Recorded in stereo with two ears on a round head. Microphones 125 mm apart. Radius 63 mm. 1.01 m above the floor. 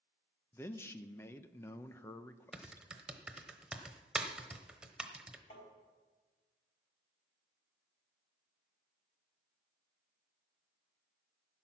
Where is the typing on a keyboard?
5° right (ahead or behind), 0.9 m.